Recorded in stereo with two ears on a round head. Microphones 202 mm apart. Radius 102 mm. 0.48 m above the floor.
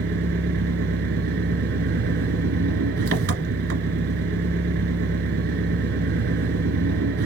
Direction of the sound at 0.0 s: 55° right (ahead or behind).